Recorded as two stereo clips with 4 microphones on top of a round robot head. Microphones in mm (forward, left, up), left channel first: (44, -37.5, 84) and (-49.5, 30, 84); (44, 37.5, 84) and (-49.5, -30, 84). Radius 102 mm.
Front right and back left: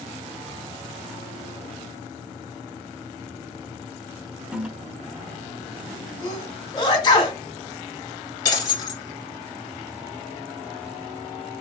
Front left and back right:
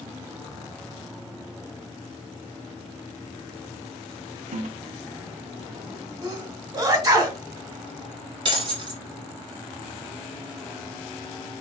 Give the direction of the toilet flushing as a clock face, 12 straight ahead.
5 o'clock.